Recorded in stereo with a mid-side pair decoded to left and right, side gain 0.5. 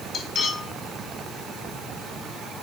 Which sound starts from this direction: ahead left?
Cutlery clinking, at 0.1 s.